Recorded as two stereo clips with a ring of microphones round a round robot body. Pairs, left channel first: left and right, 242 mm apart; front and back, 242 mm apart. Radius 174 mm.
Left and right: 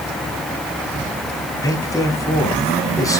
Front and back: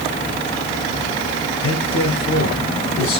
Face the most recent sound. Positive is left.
turn(degrees=15)